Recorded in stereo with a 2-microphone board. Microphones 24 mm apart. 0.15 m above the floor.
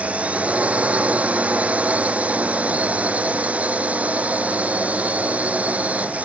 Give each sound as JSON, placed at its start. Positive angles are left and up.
{"t": 0.0, "sound": "a drone", "side_deg": -65}